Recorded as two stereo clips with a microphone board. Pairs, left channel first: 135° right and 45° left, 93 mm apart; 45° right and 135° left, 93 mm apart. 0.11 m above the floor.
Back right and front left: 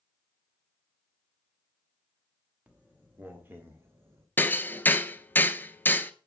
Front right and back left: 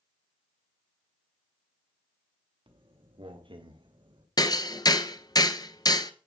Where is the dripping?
No dripping in this recording.